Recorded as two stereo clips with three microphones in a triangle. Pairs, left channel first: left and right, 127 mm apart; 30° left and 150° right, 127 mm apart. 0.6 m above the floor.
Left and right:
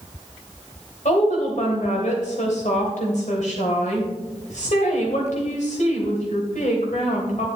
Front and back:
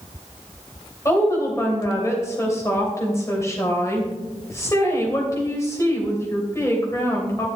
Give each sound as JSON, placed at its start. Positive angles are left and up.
{"t": 1.1, "sound": "a woman speaking", "azimuth_deg": 95, "distance_m": 2.5}